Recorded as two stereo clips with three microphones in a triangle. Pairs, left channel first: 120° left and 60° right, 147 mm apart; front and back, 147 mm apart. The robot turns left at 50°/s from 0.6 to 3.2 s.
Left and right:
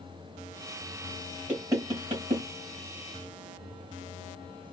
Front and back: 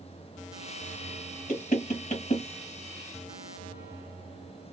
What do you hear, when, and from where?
1.5 s knocking: 15° left, 2 m; by 2.5 s 30° right, 2 m